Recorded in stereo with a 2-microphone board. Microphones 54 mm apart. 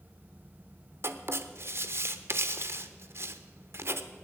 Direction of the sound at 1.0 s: 55° right (ahead or behind).